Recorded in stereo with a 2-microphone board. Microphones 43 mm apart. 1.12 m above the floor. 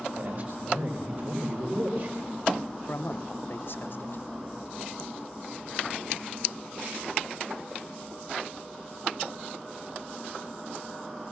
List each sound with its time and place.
0.1 s a man speaking: 55° right (ahead or behind), 4.5 m
2.9 s a man speaking: 60° left (ahead or behind), 0.8 m